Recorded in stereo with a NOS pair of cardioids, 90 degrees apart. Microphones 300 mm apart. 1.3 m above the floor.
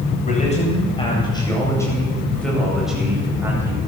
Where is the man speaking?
20° left, 8.5 m; by 3.8 s 10° right, 8.5 m.